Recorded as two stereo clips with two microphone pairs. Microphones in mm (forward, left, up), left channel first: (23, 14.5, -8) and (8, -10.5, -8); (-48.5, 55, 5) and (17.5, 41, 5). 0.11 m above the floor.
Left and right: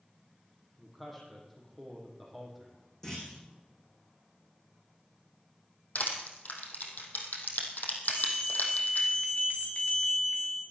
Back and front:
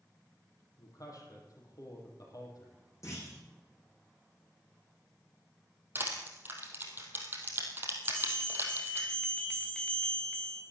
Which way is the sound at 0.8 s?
140° left.